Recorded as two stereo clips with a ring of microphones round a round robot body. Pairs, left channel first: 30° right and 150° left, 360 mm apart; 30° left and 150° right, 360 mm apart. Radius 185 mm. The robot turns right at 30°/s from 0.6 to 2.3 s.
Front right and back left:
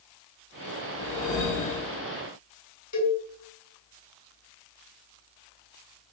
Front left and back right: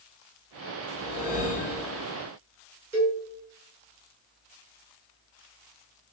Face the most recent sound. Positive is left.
turn(degrees=-70)